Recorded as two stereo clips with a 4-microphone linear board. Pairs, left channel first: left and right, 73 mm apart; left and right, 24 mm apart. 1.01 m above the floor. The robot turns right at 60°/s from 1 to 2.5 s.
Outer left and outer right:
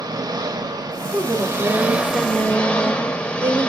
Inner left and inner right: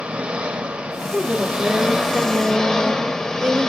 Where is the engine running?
75° right, 0.7 m; by 3.7 s 15° left, 0.7 m.